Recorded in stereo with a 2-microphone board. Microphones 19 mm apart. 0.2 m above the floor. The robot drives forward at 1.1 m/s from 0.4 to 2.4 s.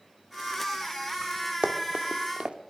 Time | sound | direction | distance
1.6 | running footsteps | 70° right (ahead or behind) | 3 m